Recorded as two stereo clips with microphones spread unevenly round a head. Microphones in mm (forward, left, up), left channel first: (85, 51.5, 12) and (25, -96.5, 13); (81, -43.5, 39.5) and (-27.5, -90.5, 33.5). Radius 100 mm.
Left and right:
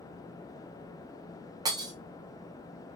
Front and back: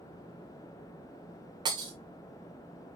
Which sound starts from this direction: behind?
Breaking glass, at 1.6 s.